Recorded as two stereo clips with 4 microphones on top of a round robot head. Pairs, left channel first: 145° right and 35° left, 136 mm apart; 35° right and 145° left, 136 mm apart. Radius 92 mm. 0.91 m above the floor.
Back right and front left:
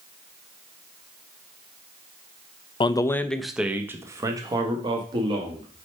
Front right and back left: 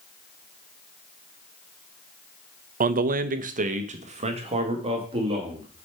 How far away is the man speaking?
About 0.5 m.